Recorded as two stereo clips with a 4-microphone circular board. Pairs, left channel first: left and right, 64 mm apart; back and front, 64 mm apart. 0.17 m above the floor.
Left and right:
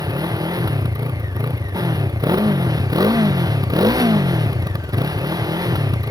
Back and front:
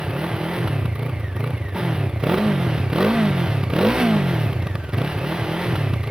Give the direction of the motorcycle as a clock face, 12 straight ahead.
3 o'clock.